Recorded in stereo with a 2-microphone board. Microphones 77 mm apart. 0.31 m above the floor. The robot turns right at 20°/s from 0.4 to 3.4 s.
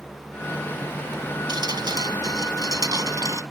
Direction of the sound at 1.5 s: 95° right.